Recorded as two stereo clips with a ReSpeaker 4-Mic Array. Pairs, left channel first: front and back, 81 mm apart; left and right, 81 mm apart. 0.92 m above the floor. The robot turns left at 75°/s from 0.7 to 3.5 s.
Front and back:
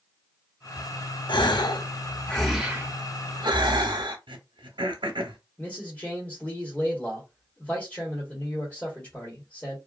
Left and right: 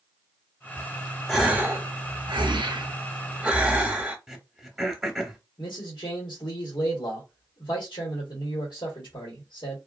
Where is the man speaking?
75° left, 1.4 m.